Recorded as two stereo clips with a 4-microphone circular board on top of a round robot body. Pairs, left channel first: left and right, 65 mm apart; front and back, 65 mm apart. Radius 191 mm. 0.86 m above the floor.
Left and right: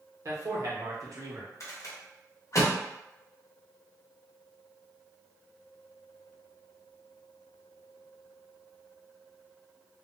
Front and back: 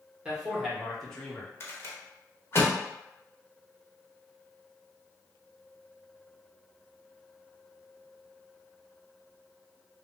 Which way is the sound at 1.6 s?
50° left.